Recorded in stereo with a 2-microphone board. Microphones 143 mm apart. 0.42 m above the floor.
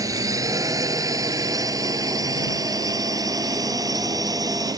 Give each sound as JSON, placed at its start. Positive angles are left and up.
{"t": 0.0, "sound": "a drone", "side_deg": -25}